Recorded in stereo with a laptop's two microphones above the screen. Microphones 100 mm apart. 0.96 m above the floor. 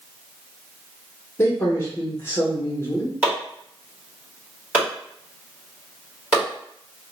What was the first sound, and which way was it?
A man speaking, 25° left (ahead or behind).